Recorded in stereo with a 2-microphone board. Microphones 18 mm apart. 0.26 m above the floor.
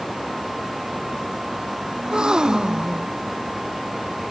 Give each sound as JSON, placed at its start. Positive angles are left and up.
{"t": 2.0, "sound": "a gasp", "side_deg": -45}